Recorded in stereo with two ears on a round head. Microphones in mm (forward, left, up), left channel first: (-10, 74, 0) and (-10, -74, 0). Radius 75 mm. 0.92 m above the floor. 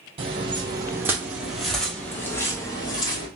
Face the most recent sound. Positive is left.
turn(degrees=30)  # may be behind; listen again after turning